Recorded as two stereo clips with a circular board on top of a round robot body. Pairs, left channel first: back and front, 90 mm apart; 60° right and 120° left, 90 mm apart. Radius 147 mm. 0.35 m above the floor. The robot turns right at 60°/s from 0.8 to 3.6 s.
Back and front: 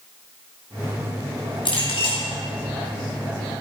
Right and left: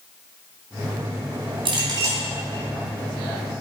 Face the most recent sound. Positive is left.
turn(degrees=-90)